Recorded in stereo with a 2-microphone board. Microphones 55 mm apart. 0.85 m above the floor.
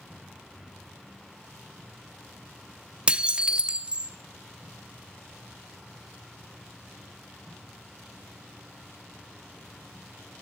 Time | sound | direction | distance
3.1 | dishes clattering | 20° right (ahead or behind) | 0.7 m